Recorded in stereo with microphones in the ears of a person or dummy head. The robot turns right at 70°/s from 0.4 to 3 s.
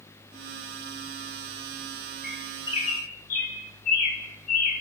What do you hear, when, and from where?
2.2 s a bird: centre (ahead or behind), 9 m; by 4.8 s 50° left (ahead or behind), 9 m